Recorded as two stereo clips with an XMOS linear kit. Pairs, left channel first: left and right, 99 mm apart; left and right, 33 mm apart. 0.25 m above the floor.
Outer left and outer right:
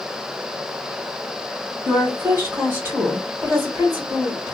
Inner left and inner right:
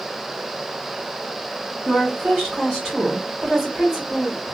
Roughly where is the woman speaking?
Right.